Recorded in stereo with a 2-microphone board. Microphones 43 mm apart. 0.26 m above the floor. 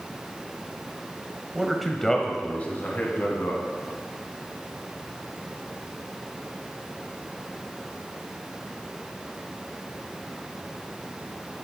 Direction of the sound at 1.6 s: 10° right (ahead or behind).